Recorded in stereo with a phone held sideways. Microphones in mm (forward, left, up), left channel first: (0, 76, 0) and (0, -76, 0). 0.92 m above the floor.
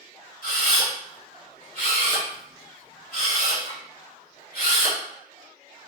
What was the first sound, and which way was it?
A camera shutter, 80° left.